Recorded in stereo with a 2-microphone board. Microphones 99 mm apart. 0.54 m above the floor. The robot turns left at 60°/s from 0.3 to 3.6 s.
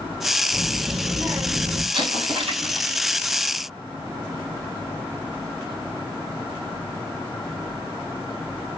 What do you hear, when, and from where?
0.5 s a child speaking: 10° left, 2.5 m; by 1.8 s 70° right, 2.5 m
1.9 s an explosion: 65° right, 2.5 m; by 2.9 s 120° right, 2.5 m